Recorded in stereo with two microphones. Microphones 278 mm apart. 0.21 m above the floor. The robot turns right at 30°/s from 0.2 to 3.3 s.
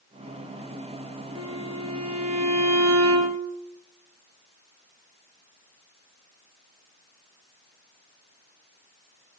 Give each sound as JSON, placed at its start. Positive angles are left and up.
{"t": 1.4, "sound": "a violin", "azimuth_deg": -120, "distance_m": 3.5}